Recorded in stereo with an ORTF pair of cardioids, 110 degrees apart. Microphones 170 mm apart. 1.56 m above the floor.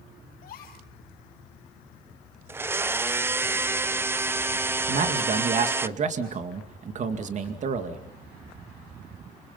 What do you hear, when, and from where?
0.4 s a gasp: 65° left, 6.5 m
2.5 s a blender: 15° right, 0.6 m
4.9 s a man speaking: 45° right, 2.5 m